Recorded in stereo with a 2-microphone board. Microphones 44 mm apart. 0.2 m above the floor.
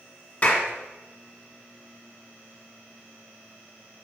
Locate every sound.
0.4 s a clap: 30° left (ahead or behind), 1.9 m